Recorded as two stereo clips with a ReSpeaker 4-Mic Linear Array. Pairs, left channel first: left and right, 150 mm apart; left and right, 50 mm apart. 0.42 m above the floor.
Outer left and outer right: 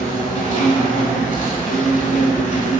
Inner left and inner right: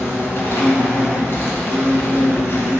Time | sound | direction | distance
0.0 | an insect | 55° left (ahead or behind) | 1.4 m